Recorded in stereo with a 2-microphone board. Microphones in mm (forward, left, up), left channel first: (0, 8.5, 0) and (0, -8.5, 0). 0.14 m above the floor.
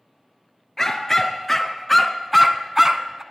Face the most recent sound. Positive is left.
turn(degrees=-25)  # may be behind; listen again after turning